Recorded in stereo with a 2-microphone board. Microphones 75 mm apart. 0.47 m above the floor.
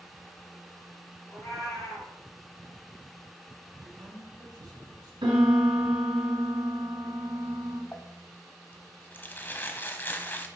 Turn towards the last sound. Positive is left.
turn(degrees=25)  # may be behind; listen again after turning